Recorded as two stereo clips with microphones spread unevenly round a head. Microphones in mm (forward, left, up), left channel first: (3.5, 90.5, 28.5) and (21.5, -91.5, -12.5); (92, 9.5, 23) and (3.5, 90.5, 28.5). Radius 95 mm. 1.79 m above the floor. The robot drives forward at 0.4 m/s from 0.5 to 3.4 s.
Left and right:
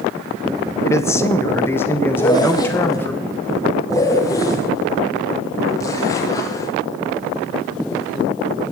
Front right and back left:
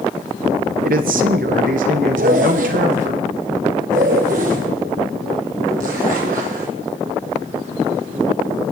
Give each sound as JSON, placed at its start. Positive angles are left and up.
{"t": 0.8, "sound": "a man speaking", "azimuth_deg": 170, "distance_m": 0.7}
{"t": 2.1, "sound": "a zipper", "azimuth_deg": 160, "distance_m": 1.0}